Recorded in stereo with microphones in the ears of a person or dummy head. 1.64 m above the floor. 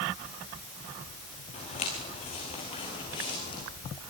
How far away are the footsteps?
About 9 m.